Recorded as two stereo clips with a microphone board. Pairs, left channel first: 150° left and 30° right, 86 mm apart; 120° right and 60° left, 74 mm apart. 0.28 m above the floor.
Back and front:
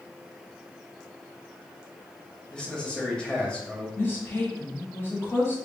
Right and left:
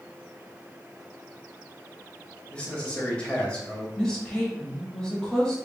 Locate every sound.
2.5 s a man speaking: 155° right, 0.9 m
4.0 s a woman speaking: 175° left, 1.0 m